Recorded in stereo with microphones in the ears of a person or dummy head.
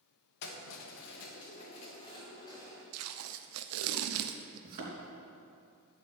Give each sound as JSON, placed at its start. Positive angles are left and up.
{"t": 0.4, "sound": "keys jangling", "side_deg": 60, "distance_m": 1.5}
{"t": 2.9, "sound": "tape being pulled", "side_deg": -80, "distance_m": 0.7}
{"t": 4.6, "sound": "a thud", "side_deg": -45, "distance_m": 3.5}